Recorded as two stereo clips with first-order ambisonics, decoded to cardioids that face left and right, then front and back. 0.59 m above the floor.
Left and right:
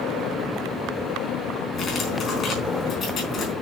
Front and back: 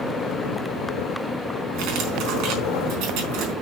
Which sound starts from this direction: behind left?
Cutlery clinking, at 1.7 s.